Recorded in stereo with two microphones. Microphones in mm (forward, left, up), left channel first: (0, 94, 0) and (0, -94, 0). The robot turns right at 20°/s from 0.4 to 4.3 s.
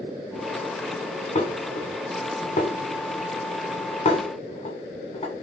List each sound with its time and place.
1.4 s dishes clattering: 35° left (ahead or behind), 0.9 m